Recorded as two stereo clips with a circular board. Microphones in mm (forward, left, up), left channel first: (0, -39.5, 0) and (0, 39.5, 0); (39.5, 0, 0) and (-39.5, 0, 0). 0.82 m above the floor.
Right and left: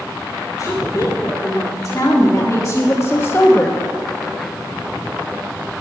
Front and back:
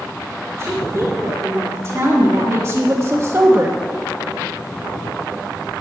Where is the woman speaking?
130° right, 3 m; by 3.8 s 145° right, 0.9 m.